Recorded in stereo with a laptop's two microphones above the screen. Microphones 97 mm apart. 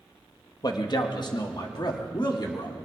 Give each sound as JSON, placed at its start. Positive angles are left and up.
{"t": 0.6, "sound": "a man speaking", "side_deg": 45, "distance_m": 1.2}